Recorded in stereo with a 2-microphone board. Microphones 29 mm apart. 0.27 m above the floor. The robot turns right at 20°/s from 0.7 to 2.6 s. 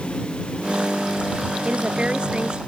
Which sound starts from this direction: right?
A woman speaking, at 1.6 s.